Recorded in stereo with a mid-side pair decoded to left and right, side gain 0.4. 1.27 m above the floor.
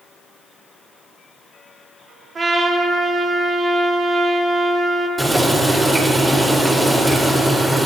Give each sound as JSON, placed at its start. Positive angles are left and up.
{"t": 2.4, "sound": "a trumpet", "azimuth_deg": -40, "distance_m": 2.5}
{"t": 5.2, "sound": "boiling", "azimuth_deg": -20, "distance_m": 4.0}